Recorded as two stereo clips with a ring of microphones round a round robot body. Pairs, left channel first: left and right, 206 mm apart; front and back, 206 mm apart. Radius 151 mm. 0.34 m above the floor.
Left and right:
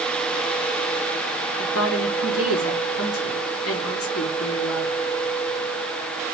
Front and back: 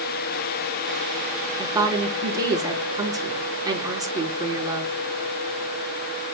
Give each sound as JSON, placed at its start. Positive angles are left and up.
{"t": 1.6, "sound": "a woman speaking", "azimuth_deg": 105, "distance_m": 6.0}